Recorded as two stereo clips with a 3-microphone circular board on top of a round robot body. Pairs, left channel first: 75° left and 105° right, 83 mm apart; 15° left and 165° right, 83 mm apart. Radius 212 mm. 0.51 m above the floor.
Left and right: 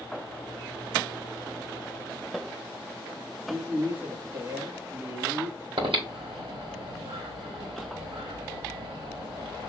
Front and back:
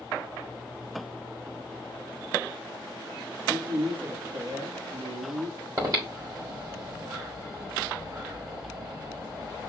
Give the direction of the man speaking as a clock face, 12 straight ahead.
6 o'clock.